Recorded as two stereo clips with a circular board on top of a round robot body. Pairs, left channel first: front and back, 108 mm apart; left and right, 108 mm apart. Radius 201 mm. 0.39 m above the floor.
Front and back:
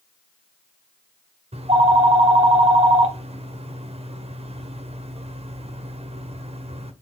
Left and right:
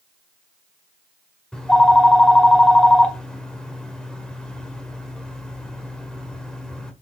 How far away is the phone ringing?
About 1.4 m.